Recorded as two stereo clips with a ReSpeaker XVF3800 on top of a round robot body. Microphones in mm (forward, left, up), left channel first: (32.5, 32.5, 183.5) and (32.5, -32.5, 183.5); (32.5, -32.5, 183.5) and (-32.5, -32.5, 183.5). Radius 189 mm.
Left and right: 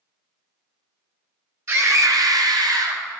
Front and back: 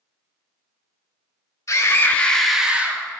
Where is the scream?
40° right, 1.4 m; by 3.0 s 120° right, 1.5 m.